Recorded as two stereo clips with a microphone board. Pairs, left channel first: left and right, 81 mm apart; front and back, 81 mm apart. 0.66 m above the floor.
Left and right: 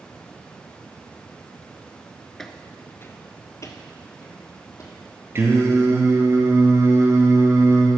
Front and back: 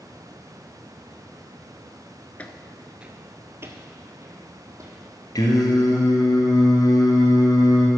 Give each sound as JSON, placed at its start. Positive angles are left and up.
{"t": 2.4, "sound": "footsteps", "azimuth_deg": 10, "distance_m": 0.6}
{"t": 5.3, "sound": "singing", "azimuth_deg": -35, "distance_m": 1.6}